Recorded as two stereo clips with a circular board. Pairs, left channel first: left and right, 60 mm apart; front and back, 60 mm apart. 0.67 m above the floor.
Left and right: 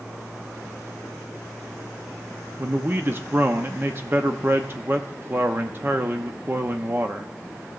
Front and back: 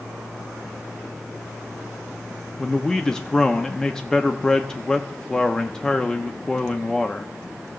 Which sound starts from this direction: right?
A man speaking, at 2.6 s.